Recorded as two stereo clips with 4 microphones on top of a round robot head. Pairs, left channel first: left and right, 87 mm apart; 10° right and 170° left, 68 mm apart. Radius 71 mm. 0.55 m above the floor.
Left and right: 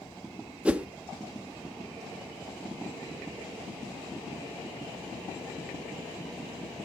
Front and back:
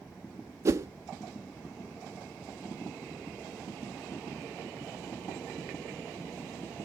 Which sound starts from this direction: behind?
A whoosh, at 0.7 s.